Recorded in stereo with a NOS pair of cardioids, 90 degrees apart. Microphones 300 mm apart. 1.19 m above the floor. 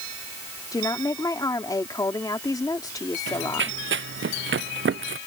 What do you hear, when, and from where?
0.7 s a woman speaking: 10° left
3.3 s running footsteps: 40° right